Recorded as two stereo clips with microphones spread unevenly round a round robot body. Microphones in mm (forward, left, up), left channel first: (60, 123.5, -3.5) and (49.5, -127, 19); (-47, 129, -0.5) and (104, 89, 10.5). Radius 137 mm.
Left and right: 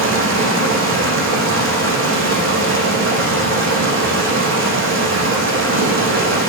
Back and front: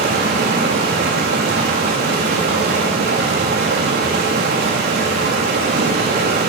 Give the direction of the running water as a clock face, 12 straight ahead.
2 o'clock.